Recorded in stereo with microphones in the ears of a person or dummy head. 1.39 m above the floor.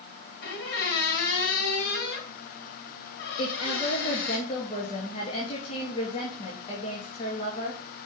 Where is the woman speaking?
40° left (ahead or behind), 2.5 m.